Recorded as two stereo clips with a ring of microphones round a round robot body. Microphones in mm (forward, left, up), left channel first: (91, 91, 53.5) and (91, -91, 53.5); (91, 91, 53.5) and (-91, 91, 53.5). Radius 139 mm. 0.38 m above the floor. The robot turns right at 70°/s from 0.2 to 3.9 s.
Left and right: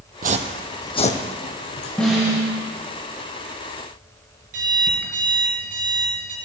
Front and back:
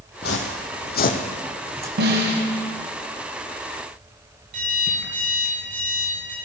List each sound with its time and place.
0.2 s footsteps: 55° right, 0.7 m; by 1.9 s 110° left, 1.4 m
2.0 s a snare drum: 175° left, 1.6 m; by 2.4 s 155° right, 1.6 m
4.5 s an alarm clock: 135° right, 2.5 m